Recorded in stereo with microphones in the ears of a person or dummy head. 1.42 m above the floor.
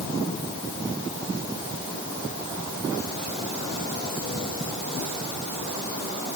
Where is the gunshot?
No gunshot in this recording.